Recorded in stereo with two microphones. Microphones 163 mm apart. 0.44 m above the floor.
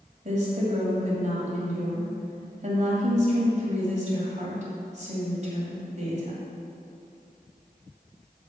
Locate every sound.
0.2 s a woman speaking: 50° right (ahead or behind), 2 m